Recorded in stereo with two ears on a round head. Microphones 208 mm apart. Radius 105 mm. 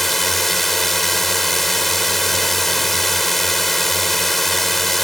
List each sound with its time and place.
0.0 s a drone: centre (ahead or behind)